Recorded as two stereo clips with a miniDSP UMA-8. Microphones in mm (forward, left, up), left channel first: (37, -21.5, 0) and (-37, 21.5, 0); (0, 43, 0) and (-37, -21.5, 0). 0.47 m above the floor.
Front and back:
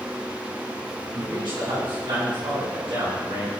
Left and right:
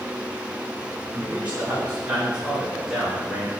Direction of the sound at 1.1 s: 175° left.